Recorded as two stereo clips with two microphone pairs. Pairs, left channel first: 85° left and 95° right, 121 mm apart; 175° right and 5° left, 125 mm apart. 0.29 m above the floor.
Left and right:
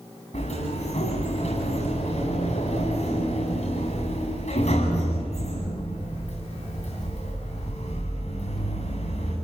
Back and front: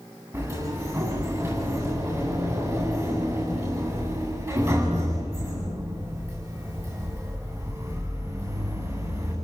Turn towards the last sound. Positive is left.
turn(degrees=70)